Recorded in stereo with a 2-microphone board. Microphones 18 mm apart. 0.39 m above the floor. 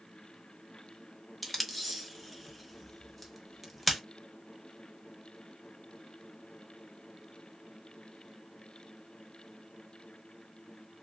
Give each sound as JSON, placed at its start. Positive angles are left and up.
{"t": 1.4, "sound": "tape being pulled", "side_deg": 0, "distance_m": 0.8}